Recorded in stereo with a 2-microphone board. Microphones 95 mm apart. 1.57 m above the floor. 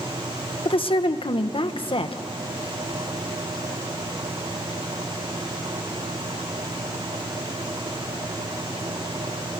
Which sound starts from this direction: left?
A woman speaking, at 0.7 s.